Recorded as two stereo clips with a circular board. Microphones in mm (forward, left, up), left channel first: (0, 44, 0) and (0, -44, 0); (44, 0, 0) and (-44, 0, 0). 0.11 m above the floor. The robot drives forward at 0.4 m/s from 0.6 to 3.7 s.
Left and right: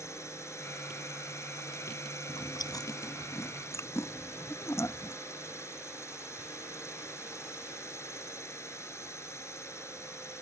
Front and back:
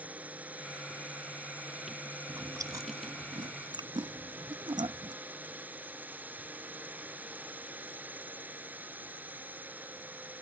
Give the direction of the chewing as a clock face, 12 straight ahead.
8 o'clock.